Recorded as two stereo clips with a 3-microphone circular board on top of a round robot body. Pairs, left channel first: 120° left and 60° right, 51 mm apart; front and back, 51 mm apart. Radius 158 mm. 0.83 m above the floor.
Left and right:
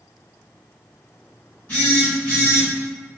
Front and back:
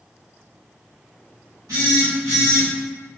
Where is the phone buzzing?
Straight behind, 0.9 m.